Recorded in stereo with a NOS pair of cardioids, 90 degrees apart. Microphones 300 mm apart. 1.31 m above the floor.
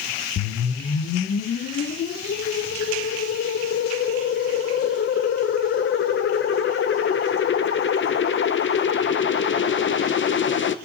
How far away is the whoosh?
About 0.6 m.